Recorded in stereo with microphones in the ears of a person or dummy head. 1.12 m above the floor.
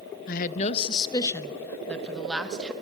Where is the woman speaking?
55° left (ahead or behind), 0.6 m; by 2.7 s centre (ahead or behind), 1.5 m.